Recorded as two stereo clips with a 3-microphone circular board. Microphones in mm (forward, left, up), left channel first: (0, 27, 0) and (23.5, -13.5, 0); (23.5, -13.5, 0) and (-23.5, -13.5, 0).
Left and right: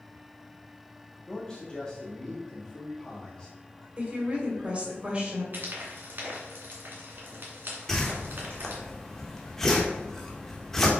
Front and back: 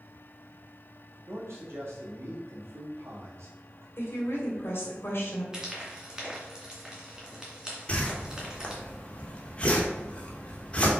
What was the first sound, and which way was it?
A man speaking, 170° right.